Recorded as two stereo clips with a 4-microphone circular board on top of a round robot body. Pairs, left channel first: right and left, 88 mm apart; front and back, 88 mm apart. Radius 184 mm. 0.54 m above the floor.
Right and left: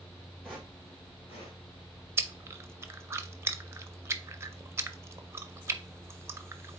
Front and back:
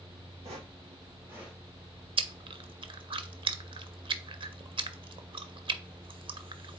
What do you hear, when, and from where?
0.4 s footsteps: 175° right, 0.9 m; by 1.6 s 95° right, 1.0 m
2.2 s chewing: 150° left, 0.6 m